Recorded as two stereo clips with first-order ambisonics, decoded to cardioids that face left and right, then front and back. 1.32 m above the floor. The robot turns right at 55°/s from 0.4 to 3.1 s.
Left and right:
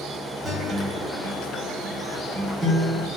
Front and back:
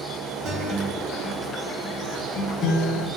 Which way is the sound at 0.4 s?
155° right.